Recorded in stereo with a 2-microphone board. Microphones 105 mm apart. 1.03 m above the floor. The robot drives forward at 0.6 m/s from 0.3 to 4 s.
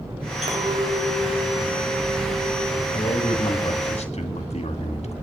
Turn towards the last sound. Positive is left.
turn(degrees=75)  # may be behind; listen again after turning